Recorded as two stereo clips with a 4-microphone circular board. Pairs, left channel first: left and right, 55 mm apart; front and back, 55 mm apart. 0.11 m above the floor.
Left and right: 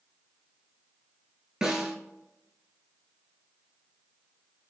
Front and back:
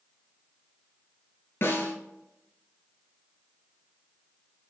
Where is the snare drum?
15° right, 0.8 m.